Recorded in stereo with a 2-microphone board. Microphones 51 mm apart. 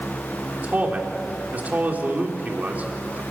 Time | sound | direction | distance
0.6 | a man speaking | 30° right (ahead or behind) | 3.5 m